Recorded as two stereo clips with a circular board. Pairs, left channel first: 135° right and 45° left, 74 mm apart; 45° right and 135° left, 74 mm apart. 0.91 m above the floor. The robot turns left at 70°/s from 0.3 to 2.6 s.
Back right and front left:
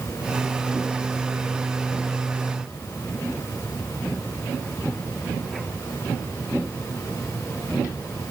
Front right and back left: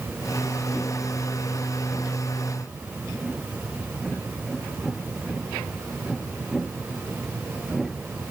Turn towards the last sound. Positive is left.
No sound to turn to.